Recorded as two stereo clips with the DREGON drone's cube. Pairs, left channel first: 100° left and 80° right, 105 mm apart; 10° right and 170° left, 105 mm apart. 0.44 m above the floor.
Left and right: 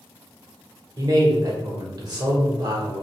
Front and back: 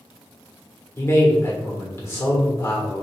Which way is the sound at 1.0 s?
65° right.